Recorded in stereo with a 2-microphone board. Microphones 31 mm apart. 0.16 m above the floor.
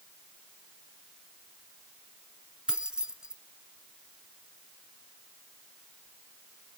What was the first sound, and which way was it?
Keys jangling, 25° right (ahead or behind).